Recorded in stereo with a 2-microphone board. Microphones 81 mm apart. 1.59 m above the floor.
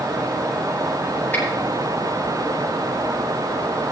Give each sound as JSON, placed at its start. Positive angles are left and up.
{"t": 1.3, "sound": "a finger snap", "side_deg": 25, "distance_m": 9.5}